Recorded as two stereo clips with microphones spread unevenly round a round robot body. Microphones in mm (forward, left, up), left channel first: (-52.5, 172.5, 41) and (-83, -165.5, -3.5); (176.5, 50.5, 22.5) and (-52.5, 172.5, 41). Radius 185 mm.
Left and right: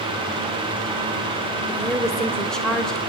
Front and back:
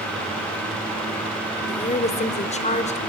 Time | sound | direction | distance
1.7 | a woman speaking | 15° right | 1.1 m